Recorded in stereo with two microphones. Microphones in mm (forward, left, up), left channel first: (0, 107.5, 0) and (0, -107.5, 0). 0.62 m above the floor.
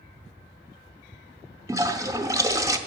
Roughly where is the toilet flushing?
Centre.